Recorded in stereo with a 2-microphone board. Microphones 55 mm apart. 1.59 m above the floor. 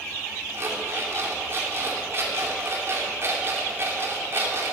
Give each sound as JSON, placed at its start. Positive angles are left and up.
{"t": 0.5, "sound": "an alarm clock", "side_deg": -40, "distance_m": 2.5}